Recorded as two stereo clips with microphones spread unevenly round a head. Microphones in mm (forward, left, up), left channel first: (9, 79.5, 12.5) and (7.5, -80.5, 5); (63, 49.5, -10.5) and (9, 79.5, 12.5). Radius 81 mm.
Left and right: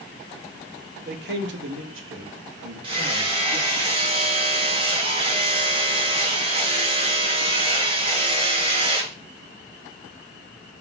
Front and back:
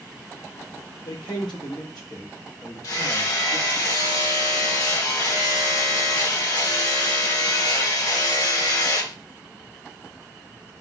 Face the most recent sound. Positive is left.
turn(degrees=-55)